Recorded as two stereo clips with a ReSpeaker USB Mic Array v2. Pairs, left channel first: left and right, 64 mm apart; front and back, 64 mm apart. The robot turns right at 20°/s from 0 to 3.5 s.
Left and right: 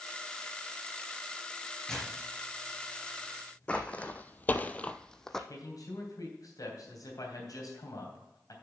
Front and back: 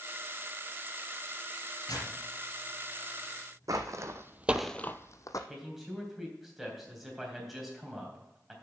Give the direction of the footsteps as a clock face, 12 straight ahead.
7 o'clock.